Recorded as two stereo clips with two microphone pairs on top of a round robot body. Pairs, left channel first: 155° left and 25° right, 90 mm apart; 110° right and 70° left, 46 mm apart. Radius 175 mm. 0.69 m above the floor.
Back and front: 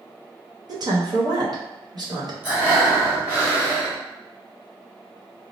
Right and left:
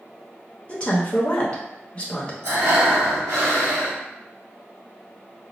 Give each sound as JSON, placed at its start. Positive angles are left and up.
{"t": 0.7, "sound": "a woman speaking", "azimuth_deg": -60, "distance_m": 1.0}
{"t": 2.4, "sound": "breathing", "azimuth_deg": 45, "distance_m": 1.4}